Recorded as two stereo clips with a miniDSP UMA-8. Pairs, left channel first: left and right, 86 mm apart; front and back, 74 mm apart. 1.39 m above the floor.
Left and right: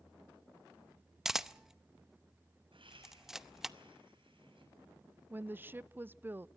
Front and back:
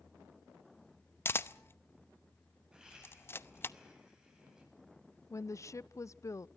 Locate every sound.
1.2 s a camera shutter: 10° right, 0.7 m
2.7 s laughter: 100° right, 9.5 m
5.3 s a woman speaking: 30° right, 0.5 m